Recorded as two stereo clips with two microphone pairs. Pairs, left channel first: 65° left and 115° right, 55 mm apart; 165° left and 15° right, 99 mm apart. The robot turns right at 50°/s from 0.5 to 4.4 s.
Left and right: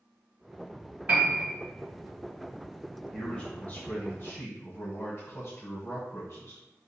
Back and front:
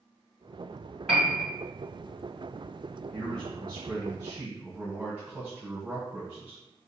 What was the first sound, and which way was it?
A piano, 100° right.